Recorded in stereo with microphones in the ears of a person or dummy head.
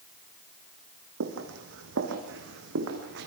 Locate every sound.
1.2 s footsteps: 70° right (ahead or behind), 4 m; by 3.3 s 65° right (ahead or behind), 4.5 m